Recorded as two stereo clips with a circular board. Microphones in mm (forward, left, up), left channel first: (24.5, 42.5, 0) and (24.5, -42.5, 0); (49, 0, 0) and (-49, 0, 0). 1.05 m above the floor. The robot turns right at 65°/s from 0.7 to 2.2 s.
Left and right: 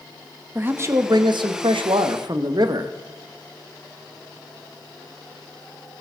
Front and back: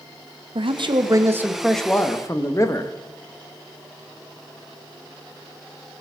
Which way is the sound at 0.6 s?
155° right.